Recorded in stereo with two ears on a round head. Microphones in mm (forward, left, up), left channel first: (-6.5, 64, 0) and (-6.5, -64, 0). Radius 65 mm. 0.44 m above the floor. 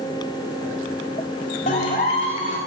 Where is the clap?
50° left (ahead or behind), 1.5 m.